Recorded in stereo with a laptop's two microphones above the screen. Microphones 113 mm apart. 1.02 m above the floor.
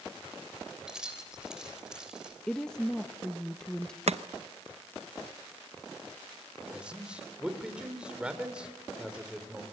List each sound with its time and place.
0.9 s keys jangling: 5° right (ahead or behind), 3.5 m
2.5 s a woman speaking: 5° left (ahead or behind), 1.0 m
4.1 s chopping: 70° right (ahead or behind), 0.6 m
6.7 s a man speaking: 10° right (ahead or behind), 4 m